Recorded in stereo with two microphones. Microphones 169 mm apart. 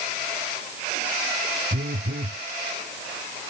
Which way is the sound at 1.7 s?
85° right.